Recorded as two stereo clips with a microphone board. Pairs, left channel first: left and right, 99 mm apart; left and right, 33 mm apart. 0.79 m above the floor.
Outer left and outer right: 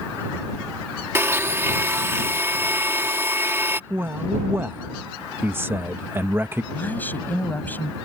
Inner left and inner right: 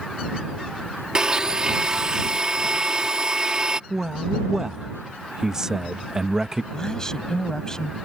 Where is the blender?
25° right (ahead or behind).